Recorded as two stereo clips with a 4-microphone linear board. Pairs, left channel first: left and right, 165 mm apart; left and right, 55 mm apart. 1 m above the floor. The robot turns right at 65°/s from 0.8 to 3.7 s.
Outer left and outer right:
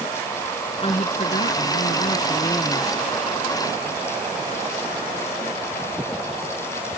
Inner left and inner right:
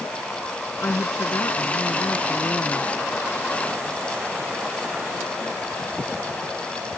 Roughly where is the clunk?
No clunk in this recording.